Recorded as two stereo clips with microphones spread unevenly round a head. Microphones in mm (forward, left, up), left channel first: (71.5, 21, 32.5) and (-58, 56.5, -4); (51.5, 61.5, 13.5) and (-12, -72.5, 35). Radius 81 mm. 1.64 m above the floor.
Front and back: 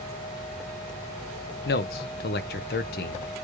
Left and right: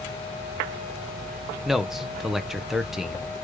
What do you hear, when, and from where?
1.6 s a man speaking: 30° right, 0.7 m